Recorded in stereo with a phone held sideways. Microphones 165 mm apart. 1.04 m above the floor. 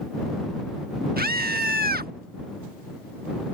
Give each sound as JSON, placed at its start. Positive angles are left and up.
{"t": 1.2, "sound": "a scream", "side_deg": -65}